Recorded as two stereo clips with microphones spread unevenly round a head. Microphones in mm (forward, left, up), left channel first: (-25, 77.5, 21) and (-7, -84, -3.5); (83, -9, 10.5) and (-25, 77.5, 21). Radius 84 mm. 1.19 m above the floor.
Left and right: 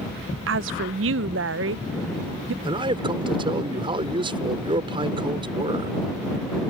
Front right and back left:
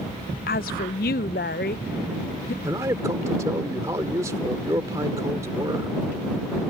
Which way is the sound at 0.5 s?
75° right.